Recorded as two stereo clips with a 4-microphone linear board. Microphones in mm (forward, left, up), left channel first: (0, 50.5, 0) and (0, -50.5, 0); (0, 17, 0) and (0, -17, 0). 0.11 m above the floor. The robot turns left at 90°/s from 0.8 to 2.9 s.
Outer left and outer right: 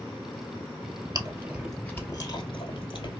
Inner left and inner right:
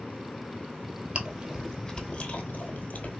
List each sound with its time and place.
1.1 s chewing: 40° right (ahead or behind), 1.0 m; by 3.2 s 55° left (ahead or behind), 1.0 m